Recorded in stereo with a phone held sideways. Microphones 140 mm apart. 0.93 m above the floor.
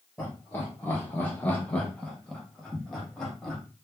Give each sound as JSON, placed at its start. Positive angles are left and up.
{"t": 0.2, "sound": "laughter", "side_deg": 10, "distance_m": 0.9}